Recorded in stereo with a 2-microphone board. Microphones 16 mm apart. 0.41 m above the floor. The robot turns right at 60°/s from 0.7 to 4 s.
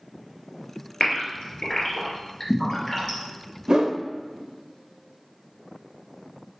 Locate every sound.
1.0 s a gasp: 55° left (ahead or behind), 2.5 m; by 3.2 s 5° right (ahead or behind), 2.5 m
3.7 s a whoosh: 50° right (ahead or behind), 0.6 m; by 4.0 s 60° right (ahead or behind), 0.6 m